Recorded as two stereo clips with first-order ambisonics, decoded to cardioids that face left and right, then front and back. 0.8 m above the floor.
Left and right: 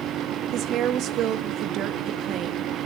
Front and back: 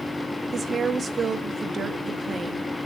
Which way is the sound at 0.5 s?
115° right.